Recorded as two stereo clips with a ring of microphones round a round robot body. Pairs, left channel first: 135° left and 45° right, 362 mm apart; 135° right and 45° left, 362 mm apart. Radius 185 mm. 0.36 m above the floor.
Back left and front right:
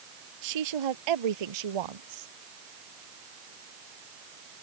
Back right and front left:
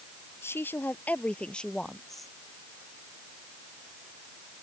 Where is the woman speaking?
50° right; by 2.3 s 45° right.